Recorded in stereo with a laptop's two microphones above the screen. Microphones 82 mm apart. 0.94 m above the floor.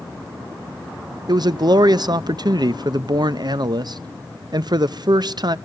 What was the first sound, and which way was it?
A man speaking, 55° right (ahead or behind).